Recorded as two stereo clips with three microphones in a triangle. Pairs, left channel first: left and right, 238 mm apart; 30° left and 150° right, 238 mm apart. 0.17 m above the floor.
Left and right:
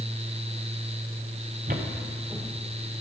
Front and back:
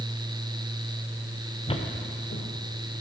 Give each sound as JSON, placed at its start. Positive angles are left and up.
{"t": 1.7, "sound": "footsteps", "azimuth_deg": -40, "distance_m": 1.2}